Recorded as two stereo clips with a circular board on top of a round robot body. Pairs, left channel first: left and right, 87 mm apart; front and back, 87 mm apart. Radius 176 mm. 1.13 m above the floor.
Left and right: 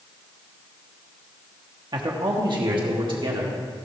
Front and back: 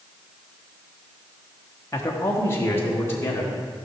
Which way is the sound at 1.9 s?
55° right.